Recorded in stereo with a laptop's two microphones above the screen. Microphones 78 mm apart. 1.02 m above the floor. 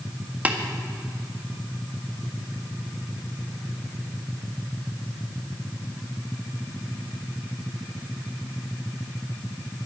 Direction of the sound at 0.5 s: 20° right (ahead or behind).